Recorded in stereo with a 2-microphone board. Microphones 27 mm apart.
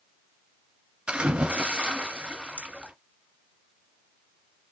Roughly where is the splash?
Right.